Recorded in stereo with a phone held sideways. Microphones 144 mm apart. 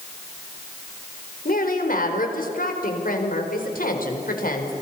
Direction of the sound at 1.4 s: 75° left (ahead or behind).